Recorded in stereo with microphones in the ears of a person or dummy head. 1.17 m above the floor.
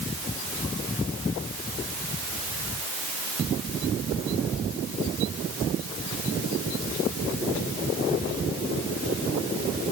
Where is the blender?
I don't hear a blender.